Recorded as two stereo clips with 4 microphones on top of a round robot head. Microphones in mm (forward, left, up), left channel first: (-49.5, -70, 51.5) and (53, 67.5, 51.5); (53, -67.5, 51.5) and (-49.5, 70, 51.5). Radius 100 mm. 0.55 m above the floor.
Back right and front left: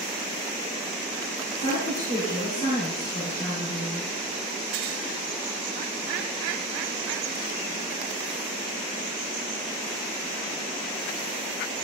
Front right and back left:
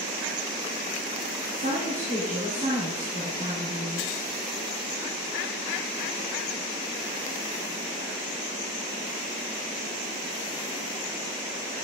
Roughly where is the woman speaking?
Behind.